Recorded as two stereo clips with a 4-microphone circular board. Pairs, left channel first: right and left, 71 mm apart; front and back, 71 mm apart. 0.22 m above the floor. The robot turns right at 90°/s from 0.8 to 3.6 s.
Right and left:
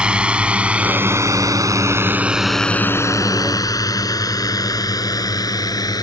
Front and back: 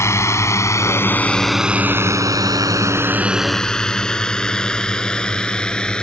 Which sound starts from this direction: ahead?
A drone, at 0.0 s.